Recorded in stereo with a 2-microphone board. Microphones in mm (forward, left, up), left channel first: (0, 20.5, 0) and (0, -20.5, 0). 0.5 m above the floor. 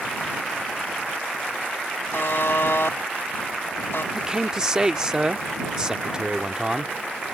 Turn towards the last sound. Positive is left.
turn(degrees=-20)  # may be behind; listen again after turning